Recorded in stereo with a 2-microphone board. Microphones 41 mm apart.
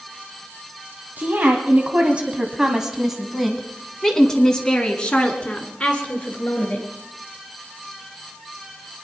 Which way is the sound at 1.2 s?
50° right (ahead or behind).